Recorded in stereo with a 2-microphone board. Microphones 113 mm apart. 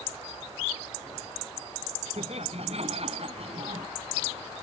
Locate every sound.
2.2 s laughter: 60° right (ahead or behind); by 3.9 s 55° right (ahead or behind)